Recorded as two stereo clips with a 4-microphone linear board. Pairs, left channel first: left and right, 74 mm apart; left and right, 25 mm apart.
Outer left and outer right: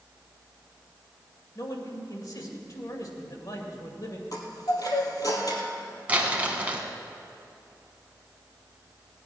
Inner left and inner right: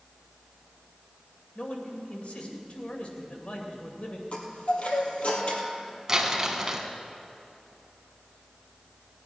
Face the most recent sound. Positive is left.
turn(degrees=-20)  # may be behind; listen again after turning